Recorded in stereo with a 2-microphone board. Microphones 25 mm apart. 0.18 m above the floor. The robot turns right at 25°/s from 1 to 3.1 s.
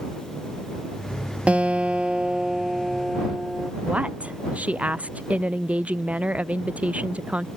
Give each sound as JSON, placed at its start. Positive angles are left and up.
{"t": 1.5, "sound": "a guitar", "azimuth_deg": -60}
{"t": 3.9, "sound": "a woman speaking", "side_deg": -65}